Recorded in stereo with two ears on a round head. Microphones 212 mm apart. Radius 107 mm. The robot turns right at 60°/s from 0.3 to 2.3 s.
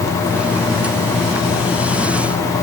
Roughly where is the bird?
I don't hear a bird.